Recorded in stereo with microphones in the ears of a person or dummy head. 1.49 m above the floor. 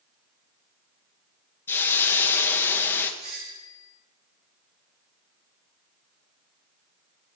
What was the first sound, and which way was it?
A hiss, 10° left (ahead or behind).